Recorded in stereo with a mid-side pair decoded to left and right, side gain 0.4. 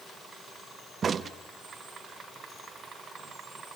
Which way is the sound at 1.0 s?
50° right.